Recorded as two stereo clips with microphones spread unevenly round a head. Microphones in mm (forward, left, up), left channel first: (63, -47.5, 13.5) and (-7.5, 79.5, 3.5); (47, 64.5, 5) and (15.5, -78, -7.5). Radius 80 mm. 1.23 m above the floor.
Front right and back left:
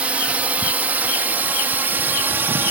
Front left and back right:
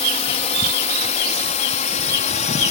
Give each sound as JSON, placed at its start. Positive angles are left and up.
{"t": 0.0, "sound": "a drone", "azimuth_deg": 40}